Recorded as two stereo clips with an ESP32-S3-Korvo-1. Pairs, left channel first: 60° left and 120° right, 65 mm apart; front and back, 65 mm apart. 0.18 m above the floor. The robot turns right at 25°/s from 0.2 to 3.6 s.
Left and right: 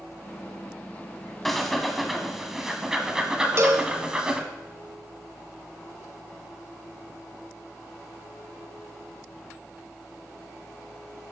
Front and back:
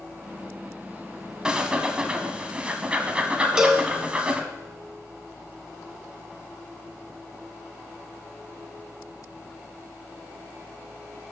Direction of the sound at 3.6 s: 105° right.